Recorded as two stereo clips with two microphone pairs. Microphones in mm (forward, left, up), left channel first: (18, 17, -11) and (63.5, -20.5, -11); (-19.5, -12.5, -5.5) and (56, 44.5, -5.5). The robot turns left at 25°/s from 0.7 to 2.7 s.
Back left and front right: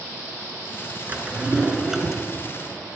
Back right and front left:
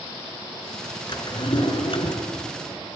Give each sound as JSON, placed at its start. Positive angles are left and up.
{"t": 1.1, "sound": "a drawer", "azimuth_deg": -100, "distance_m": 2.5}